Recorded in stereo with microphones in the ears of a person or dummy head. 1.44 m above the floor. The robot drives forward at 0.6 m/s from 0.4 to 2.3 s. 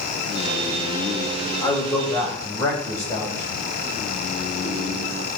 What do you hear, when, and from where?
1.6 s a man speaking: 25° left (ahead or behind), 1.9 m; by 3.6 s 20° left (ahead or behind), 2.5 m